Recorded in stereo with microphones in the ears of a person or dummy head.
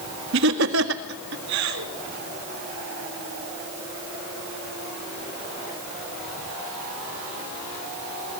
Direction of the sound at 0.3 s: 70° right (ahead or behind).